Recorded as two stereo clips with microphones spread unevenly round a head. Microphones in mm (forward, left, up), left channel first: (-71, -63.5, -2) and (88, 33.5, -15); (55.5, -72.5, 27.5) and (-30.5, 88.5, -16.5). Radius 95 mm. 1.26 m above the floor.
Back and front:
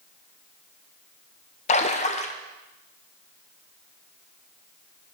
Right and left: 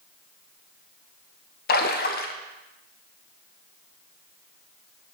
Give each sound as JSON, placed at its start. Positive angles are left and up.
{"t": 1.7, "sound": "a splash", "azimuth_deg": -95, "distance_m": 0.6}